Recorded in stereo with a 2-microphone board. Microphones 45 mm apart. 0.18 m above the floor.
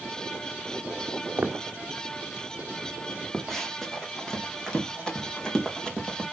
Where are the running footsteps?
5° left (ahead or behind), 2.5 m; by 6.2 s 15° left (ahead or behind), 4.5 m.